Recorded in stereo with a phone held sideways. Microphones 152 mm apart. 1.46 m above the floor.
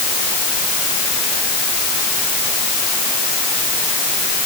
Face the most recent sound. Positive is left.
No sound to turn to.